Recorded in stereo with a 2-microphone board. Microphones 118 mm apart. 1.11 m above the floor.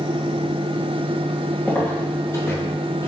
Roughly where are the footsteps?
Centre.